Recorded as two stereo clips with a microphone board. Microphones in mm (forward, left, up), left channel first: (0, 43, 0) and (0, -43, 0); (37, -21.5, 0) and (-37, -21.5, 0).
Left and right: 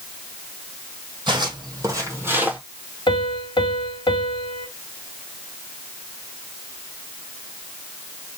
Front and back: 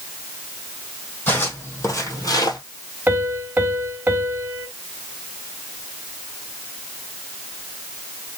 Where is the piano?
115° left, 1.2 m.